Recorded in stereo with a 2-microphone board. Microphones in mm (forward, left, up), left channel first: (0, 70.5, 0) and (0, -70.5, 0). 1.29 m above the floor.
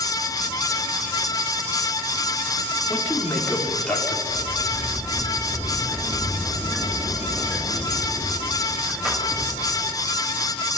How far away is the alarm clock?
No alarm clock in this recording.